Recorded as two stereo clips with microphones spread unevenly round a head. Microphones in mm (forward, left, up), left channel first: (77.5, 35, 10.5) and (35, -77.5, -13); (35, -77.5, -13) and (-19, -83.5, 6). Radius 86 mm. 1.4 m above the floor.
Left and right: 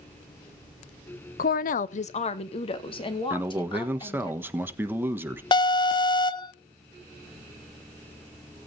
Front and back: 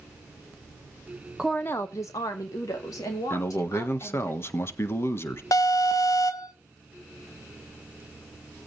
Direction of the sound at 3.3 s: 35° right.